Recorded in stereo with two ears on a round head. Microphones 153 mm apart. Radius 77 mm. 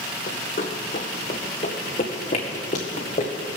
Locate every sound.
0.3 s running footsteps: 50° left (ahead or behind), 1.1 m; by 3.3 s 35° left (ahead or behind), 2.5 m